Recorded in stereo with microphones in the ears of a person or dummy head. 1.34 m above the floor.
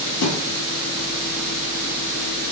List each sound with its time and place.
0.2 s a thud: 65° left (ahead or behind), 3.5 m